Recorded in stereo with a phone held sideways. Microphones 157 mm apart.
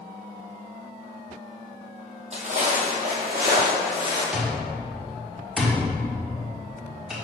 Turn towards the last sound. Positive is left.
turn(degrees=-5)  # may be behind; listen again after turning